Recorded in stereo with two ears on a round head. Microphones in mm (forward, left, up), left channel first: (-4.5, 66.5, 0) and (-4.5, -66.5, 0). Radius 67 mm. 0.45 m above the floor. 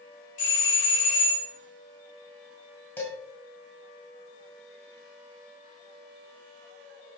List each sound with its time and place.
0.4 s a doorbell: 55° left (ahead or behind), 2 m
3.0 s dishes clattering: 15° left (ahead or behind), 1.9 m